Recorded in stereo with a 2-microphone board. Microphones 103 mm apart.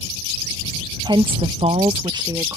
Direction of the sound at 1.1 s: 45° right (ahead or behind).